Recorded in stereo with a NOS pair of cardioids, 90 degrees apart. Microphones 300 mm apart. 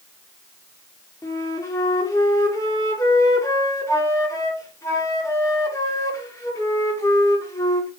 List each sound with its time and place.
1.2 s a flute: 10° left, 0.7 m